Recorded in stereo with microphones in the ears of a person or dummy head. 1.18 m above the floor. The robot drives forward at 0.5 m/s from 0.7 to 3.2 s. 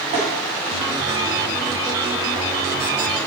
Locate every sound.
0.1 s tapping: 35° right (ahead or behind), 1.9 m